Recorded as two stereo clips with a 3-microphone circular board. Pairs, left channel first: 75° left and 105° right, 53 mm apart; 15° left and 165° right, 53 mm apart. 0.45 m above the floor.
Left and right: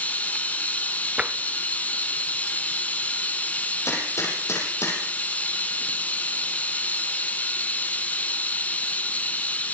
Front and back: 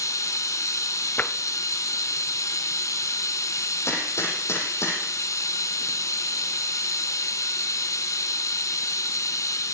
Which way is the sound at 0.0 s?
15° left.